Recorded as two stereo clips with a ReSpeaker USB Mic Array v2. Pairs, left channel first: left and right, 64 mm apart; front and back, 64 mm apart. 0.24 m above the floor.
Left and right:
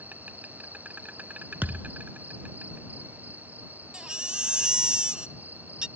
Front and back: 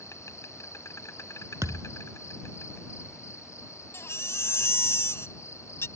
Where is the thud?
150° right.